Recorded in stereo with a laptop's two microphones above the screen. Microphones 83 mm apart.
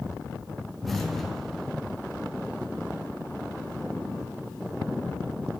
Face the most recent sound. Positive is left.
turn(degrees=0)  # may be behind; listen again after turning